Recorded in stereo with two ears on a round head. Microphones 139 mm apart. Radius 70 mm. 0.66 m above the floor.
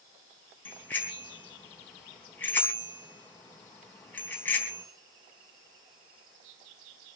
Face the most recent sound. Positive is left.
turn(degrees=10)  # may be behind; listen again after turning